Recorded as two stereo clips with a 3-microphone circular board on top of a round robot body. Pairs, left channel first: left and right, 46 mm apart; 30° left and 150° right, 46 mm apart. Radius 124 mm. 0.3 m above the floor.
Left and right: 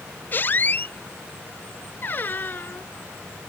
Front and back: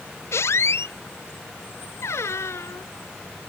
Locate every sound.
0.3 s a squeak: 45° left